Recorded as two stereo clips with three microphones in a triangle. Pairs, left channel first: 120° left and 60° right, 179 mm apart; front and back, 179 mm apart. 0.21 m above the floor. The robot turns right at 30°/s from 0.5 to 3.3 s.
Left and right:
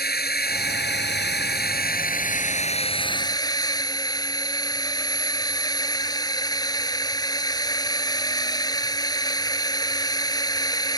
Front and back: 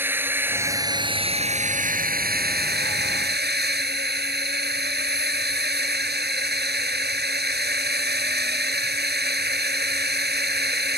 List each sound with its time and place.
0.0 s a drone: 100° left; by 11.0 s 175° right